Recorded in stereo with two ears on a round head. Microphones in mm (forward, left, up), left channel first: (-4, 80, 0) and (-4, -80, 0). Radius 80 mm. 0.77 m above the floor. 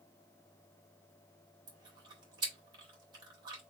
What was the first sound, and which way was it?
Chewing, 25° right (ahead or behind).